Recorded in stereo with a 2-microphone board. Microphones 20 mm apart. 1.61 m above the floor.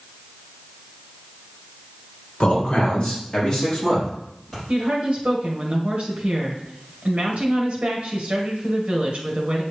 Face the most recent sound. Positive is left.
turn(degrees=-65)  # may be behind; listen again after turning